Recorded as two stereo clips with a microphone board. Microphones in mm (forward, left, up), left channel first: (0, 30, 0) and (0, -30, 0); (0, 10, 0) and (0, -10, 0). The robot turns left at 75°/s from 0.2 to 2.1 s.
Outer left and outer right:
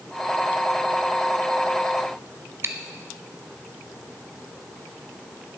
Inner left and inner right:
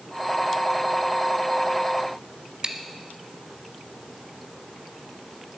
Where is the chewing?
45° right (ahead or behind), 0.9 m.